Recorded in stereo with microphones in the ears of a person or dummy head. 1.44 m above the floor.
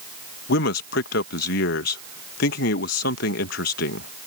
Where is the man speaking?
60° left (ahead or behind).